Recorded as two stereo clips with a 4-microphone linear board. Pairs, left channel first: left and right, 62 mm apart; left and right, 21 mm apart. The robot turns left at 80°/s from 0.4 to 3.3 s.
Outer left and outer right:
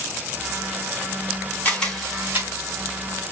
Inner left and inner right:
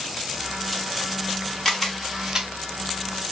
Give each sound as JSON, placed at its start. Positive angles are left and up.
{"t": 1.6, "sound": "a camera shutter", "side_deg": 25, "distance_m": 1.5}